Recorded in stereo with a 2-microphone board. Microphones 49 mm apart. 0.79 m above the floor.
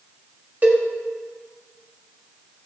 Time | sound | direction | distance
0.6 | a cowbell | 40° right (ahead or behind) | 1.8 m